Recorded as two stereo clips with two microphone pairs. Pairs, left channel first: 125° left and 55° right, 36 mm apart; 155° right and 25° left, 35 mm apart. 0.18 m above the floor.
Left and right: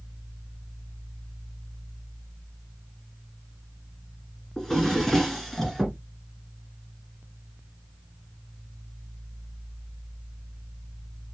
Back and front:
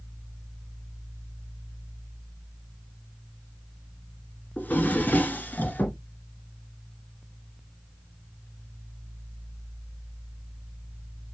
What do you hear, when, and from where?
4.6 s a drawer: 160° right, 1.4 m